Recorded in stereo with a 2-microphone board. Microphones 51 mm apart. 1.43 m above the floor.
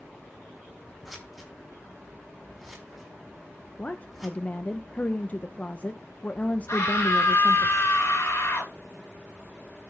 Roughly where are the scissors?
Centre.